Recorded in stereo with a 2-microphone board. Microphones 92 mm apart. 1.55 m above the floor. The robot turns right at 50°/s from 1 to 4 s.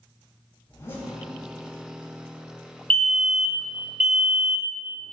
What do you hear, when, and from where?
0.7 s a zipper: 30° left (ahead or behind), 4.5 m; by 1.1 s 25° left (ahead or behind), 4.5 m
2.9 s a fire alarm: 15° left (ahead or behind), 0.8 m; by 4.8 s 10° right (ahead or behind), 0.8 m